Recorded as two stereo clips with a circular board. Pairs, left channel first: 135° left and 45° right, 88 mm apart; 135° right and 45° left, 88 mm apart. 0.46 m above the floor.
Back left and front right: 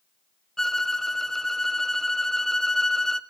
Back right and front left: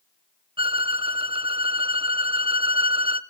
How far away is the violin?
About 0.6 m.